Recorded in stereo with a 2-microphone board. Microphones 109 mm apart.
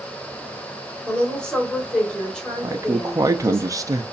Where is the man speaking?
30° right (ahead or behind), 0.5 m.